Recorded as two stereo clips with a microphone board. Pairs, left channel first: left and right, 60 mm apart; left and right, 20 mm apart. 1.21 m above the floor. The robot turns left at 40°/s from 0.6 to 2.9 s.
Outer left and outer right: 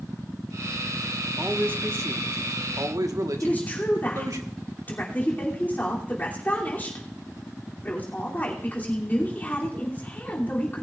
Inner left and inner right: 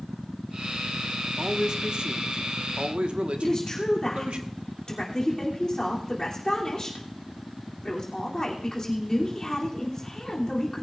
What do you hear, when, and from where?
1.4 s a man speaking: 30° right, 1.3 m; by 4.4 s 90° right, 1.3 m
3.4 s a woman speaking: 30° left (ahead or behind), 3 m